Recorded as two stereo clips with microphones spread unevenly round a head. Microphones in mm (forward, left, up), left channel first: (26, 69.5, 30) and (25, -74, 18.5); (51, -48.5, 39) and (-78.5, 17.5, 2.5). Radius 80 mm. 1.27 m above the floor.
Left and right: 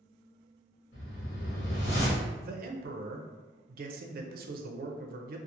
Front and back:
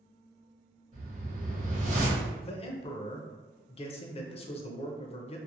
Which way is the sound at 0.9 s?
105° left.